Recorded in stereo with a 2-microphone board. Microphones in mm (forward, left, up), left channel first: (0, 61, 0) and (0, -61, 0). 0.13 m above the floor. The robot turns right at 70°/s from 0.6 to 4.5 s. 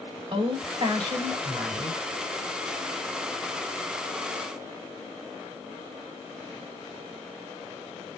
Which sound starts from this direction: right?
A woman speaking, at 0.3 s.